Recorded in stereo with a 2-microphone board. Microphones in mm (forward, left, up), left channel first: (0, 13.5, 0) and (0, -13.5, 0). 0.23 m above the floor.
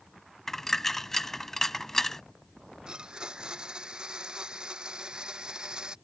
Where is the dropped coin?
15° left (ahead or behind).